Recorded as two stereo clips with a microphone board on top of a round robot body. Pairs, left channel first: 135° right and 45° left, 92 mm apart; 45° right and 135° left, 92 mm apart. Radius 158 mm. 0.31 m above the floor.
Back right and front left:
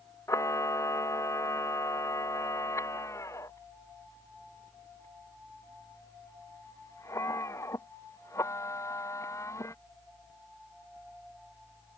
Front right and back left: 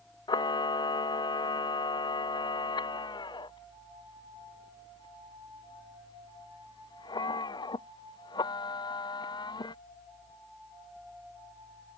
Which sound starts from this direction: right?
A camera shutter, at 0.3 s.